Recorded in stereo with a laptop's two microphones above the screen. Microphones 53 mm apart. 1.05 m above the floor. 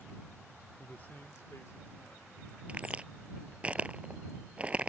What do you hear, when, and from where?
0.8 s a man speaking: 20° left (ahead or behind); by 2.6 s 75° left (ahead or behind)
2.7 s a crack: 20° right (ahead or behind)